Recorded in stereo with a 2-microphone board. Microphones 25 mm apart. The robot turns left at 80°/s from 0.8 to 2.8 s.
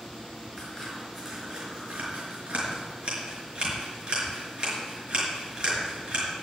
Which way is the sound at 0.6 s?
25° left (ahead or behind).